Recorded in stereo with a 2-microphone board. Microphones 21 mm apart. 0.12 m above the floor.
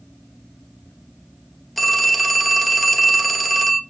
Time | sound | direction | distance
1.8 | a phone ringing | 5° left (ahead or behind) | 1.3 m